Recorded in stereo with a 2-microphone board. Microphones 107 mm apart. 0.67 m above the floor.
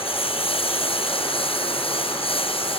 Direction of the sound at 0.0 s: 60° left (ahead or behind).